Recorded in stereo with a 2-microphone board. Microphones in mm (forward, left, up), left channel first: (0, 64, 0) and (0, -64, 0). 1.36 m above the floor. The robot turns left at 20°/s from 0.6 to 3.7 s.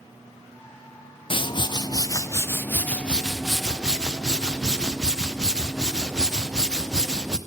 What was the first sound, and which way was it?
A whoosh, 45° left.